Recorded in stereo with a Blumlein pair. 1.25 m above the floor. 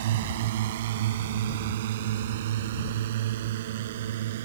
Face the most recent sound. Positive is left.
turn(degrees=-55)